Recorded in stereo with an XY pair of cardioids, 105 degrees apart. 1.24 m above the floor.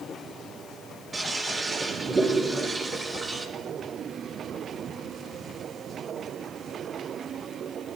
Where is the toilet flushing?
25° right, 5 m.